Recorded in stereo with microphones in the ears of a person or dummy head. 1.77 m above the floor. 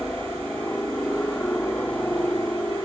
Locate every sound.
0.0 s a helicopter: 10° left (ahead or behind)